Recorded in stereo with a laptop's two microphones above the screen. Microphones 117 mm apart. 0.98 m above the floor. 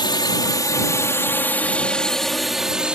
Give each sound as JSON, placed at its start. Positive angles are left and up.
{"t": 0.0, "sound": "a drone", "side_deg": 40}